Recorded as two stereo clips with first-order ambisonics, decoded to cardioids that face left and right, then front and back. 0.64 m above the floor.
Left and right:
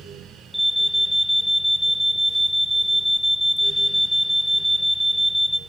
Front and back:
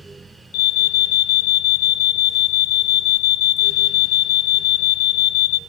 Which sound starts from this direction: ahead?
An alarm, at 0.5 s.